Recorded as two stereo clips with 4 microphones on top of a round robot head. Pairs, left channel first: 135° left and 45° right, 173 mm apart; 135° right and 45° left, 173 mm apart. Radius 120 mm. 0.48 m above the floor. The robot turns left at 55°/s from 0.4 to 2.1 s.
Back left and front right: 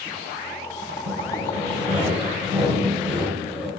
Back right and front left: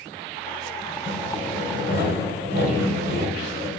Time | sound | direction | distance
1.1 | sawing | 70° right | 1.5 m